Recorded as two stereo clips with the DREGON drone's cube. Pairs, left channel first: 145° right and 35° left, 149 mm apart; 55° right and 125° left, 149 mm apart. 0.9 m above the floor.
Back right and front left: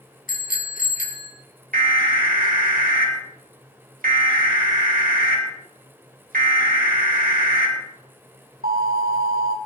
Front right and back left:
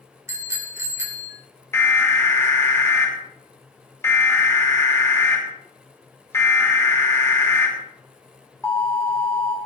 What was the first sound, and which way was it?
A bicycle bell, 165° right.